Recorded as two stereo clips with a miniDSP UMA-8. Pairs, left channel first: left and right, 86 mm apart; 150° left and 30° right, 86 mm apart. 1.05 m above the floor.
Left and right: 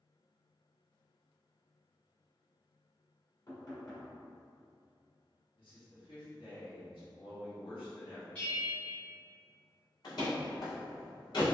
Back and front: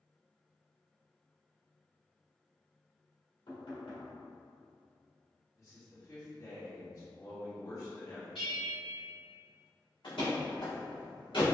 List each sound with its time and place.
3.5 s knocking: 135° left, 1.7 m
5.6 s a man speaking: 100° left, 1.8 m
8.3 s a bell: 155° left, 1.7 m
10.0 s a door slam: 125° left, 1.9 m